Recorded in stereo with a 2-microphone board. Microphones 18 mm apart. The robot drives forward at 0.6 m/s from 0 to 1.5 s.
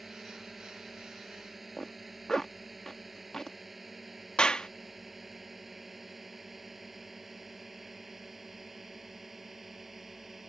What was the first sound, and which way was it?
A drone, 5° right (ahead or behind).